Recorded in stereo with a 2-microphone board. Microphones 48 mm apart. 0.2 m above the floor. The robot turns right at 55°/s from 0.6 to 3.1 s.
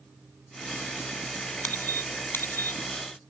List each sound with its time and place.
1.6 s a squeak: 35° left (ahead or behind), 0.8 m; by 2.8 s 45° left (ahead or behind), 0.8 m